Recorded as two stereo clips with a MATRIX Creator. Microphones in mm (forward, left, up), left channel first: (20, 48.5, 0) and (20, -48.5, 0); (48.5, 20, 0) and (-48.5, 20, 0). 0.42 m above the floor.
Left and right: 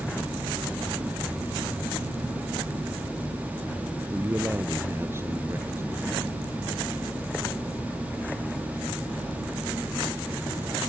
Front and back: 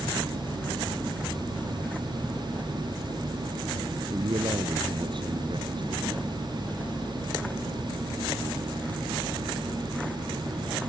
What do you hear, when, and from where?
4.1 s a man speaking: 150° right